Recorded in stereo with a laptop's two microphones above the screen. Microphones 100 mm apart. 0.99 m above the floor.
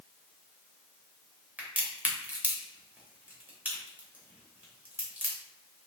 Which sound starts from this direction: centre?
A crack, at 1.6 s.